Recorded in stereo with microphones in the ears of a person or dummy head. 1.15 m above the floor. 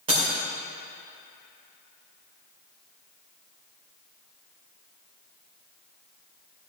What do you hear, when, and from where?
0.1 s breaking glass: 35° right (ahead or behind), 2 m